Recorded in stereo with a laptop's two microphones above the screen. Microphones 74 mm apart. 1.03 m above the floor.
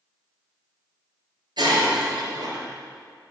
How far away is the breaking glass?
About 4 m.